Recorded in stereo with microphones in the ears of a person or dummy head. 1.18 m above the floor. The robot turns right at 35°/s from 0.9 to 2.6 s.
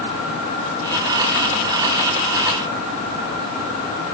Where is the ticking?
I don't hear ticking.